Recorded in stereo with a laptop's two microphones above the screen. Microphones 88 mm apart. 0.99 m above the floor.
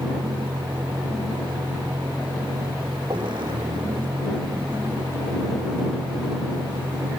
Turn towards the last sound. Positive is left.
turn(degrees=-65)  # may be behind; listen again after turning